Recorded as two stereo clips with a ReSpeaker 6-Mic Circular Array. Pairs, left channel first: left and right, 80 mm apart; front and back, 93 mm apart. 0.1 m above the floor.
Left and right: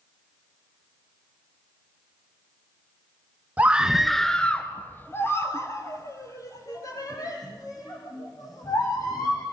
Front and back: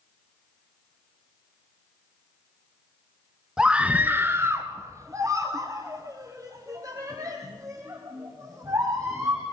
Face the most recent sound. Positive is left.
turn(degrees=130)